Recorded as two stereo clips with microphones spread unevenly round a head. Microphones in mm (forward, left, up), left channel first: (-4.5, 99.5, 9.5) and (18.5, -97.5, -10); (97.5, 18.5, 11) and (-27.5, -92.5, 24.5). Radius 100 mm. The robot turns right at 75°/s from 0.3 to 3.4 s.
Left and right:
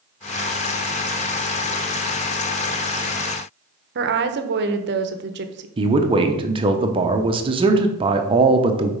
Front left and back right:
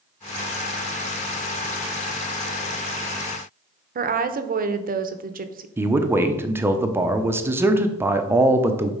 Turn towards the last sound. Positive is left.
turn(degrees=-65)